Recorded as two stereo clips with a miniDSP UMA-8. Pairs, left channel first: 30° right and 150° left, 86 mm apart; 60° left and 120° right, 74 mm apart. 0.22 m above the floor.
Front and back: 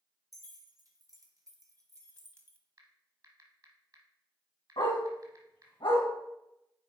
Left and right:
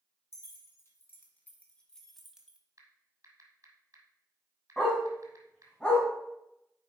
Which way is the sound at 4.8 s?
15° right.